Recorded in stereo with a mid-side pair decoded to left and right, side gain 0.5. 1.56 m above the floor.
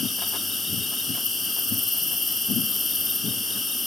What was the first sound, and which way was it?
An insect, 25° left.